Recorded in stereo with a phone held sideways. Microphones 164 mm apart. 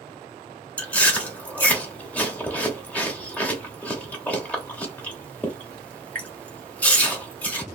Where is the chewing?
10° left (ahead or behind), 0.8 m.